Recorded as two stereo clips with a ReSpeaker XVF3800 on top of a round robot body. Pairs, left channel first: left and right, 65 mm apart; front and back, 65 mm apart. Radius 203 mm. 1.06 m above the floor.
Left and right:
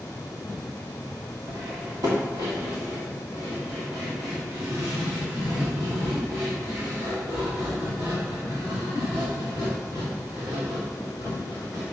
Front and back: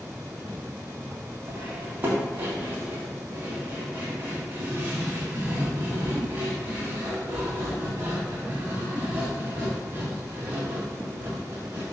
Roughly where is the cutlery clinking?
Behind right.